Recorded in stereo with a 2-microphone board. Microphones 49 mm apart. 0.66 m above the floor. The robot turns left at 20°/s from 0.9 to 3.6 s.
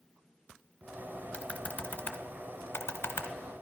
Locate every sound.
1.3 s typing on a keyboard: 25° left (ahead or behind), 1.6 m; by 3.3 s 65° left (ahead or behind), 1.6 m